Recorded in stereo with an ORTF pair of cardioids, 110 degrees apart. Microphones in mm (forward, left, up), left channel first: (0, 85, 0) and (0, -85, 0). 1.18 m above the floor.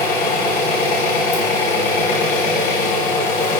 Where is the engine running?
60° left, 3.5 m.